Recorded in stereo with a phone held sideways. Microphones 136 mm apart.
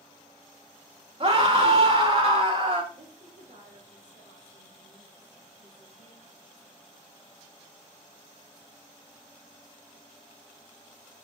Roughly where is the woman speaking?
Right.